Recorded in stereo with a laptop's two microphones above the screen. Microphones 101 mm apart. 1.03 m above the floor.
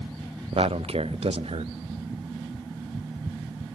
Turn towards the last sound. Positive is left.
turn(degrees=-70)  # may be behind; listen again after turning